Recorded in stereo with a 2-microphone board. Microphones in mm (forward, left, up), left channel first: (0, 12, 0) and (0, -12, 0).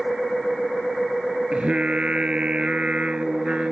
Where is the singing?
45° right (ahead or behind).